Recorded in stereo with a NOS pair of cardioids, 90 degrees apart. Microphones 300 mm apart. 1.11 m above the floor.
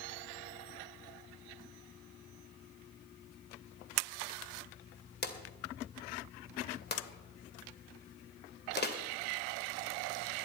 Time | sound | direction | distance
5.2 | a drawer | 35° left | 2 m